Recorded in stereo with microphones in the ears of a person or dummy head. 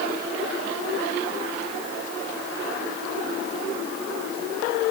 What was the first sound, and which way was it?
Only background noise.